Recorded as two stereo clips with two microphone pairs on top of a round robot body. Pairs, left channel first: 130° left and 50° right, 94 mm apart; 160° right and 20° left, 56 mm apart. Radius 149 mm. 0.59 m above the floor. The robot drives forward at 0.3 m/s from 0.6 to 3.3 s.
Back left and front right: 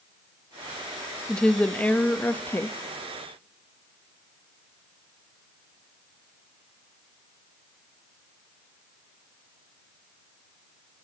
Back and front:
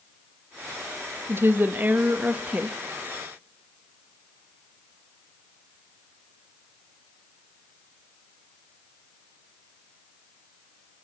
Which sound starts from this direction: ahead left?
A woman speaking, at 1.3 s.